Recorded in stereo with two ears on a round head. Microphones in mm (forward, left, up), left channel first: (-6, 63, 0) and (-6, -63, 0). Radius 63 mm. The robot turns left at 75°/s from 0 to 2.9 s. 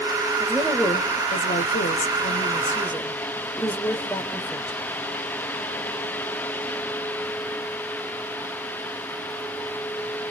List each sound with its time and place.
0.4 s a woman speaking: 160° right, 4 m; by 4.8 s 10° left, 4 m